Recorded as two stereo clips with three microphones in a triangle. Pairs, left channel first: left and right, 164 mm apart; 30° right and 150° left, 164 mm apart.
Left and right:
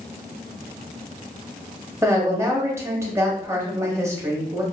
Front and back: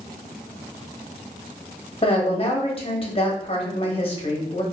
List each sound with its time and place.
2.0 s a woman speaking: 30° right, 0.8 m